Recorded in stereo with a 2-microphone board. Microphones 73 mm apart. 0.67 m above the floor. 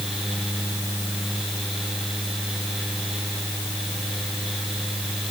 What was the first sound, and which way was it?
Only background noise.